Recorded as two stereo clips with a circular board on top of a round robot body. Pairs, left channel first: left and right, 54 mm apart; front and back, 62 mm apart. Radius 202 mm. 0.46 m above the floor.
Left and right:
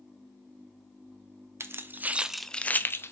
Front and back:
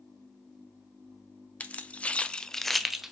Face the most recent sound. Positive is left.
turn(degrees=95)